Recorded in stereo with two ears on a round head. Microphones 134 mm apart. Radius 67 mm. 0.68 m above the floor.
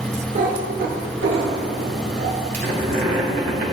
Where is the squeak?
60° right (ahead or behind), 2.5 m.